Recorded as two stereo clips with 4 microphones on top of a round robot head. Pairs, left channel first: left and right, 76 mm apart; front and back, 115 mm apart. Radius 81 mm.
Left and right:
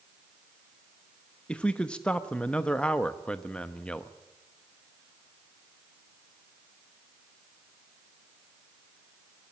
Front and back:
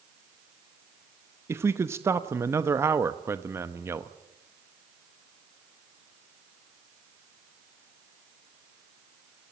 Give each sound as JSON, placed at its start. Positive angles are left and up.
{"t": 1.5, "sound": "a man speaking", "azimuth_deg": 150, "distance_m": 0.9}